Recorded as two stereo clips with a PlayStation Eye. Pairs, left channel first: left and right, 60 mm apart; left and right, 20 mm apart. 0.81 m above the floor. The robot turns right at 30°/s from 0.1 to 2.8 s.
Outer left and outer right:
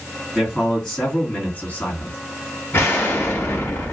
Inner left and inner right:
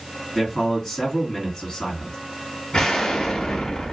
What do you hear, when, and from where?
0.3 s a man speaking: 10° right, 2.5 m; by 2.2 s 45° left, 2.5 m
2.7 s an explosion: 40° left (ahead or behind), 1.0 m